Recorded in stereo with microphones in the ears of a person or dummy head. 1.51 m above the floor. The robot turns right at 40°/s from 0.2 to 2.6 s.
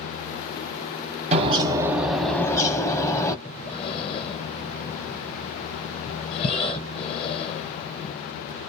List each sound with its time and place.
1.3 s a bird: 30° right, 0.6 m; by 3.4 s 20° left, 0.6 m
3.5 s breathing: 35° left (ahead or behind), 0.8 m